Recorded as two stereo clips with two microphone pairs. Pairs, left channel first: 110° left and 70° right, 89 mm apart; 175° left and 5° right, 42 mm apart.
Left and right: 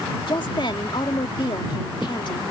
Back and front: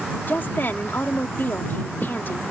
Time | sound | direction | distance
0.3 | a woman speaking | 140° left | ?